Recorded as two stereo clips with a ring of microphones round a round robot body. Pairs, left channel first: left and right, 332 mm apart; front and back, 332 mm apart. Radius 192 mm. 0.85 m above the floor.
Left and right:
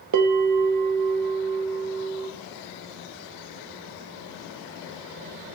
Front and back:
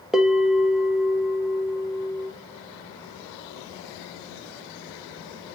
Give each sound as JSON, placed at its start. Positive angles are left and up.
{"t": 0.1, "sound": "a bell", "azimuth_deg": -90, "distance_m": 1.1}